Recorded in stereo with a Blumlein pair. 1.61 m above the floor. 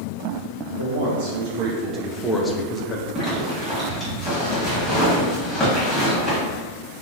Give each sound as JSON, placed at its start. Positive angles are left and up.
{"t": 0.8, "sound": "a man speaking", "azimuth_deg": -65, "distance_m": 0.9}
{"t": 3.1, "sound": "a zipper", "azimuth_deg": 15, "distance_m": 1.4}